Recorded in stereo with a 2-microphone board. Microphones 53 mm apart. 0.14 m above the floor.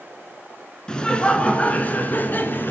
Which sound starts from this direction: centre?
Laughter, at 0.9 s.